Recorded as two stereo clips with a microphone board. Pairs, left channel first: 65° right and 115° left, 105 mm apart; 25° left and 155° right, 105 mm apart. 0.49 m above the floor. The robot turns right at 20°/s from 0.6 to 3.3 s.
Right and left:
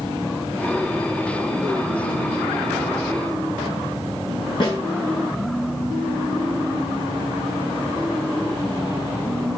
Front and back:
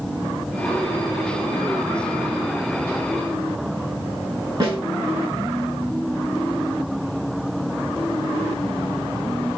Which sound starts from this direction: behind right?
A snare drum, at 4.6 s.